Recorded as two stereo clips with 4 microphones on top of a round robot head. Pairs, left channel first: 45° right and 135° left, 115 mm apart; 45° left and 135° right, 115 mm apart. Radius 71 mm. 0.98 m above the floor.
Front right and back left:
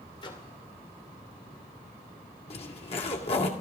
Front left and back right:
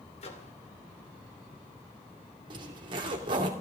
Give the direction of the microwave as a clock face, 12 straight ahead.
12 o'clock.